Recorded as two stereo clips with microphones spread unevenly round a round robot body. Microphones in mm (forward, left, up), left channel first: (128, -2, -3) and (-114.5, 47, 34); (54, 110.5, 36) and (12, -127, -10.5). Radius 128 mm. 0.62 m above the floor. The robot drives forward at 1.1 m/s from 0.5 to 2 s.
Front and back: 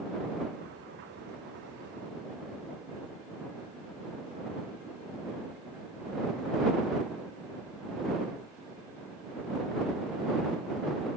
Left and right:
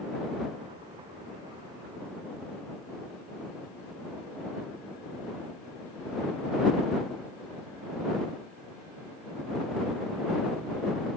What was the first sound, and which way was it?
Only background noise.